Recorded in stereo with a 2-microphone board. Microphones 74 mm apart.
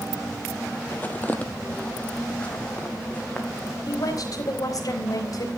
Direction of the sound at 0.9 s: 25° left (ahead or behind).